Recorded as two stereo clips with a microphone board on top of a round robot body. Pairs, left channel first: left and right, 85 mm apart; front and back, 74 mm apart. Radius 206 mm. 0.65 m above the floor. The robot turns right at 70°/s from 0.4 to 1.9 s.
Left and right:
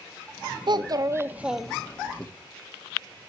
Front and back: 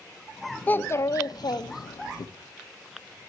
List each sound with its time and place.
0.7 s a child speaking: 70° right, 1.3 m; by 2.3 s 20° left, 1.3 m